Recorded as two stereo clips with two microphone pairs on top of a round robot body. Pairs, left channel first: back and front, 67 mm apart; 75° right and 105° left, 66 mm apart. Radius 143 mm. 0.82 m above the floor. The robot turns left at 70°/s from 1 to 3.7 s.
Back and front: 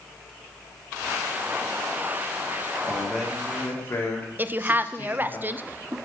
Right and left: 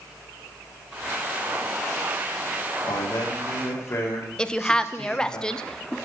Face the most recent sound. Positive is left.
turn(degrees=-5)